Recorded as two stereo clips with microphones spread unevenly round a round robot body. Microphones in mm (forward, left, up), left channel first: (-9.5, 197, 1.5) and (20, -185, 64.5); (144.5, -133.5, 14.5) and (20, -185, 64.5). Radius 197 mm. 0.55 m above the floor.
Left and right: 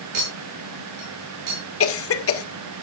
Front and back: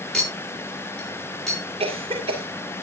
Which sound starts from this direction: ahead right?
A clink, at 0.1 s.